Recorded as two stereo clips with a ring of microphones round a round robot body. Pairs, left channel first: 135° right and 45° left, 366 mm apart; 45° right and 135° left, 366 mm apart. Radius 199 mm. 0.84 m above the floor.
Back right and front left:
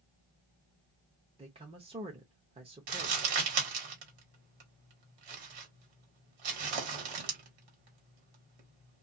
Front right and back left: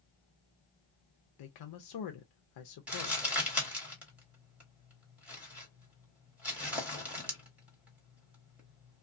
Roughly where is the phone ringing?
No phone ringing in this recording.